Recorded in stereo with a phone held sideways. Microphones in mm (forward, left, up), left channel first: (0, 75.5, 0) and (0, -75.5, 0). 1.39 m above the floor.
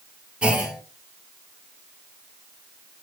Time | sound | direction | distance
0.4 | a clunk | 5° right (ahead or behind) | 2.0 m